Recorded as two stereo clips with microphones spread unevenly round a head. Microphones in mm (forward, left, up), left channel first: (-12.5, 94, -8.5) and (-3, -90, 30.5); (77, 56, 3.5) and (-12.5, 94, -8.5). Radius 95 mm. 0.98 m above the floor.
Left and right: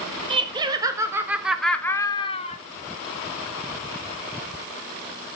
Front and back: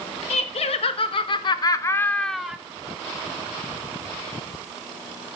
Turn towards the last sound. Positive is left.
turn(degrees=85)